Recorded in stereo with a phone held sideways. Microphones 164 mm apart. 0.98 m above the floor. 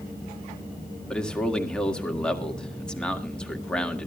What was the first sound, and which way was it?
A man speaking, 5° left (ahead or behind).